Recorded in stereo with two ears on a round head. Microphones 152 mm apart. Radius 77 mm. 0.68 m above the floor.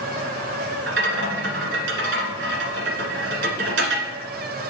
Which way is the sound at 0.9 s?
75° right (ahead or behind).